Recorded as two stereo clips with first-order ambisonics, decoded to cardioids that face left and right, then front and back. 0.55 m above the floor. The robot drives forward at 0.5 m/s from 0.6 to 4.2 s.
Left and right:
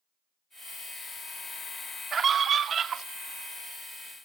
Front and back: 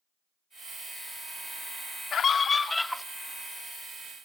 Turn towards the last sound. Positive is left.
turn(degrees=-155)